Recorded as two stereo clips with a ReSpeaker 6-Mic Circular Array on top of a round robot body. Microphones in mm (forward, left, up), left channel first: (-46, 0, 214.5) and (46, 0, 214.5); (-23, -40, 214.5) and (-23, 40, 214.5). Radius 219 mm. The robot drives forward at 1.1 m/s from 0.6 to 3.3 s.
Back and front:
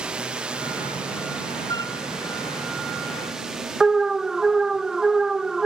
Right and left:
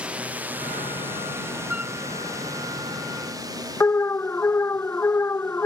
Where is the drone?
60° left; by 5.7 s 85° left.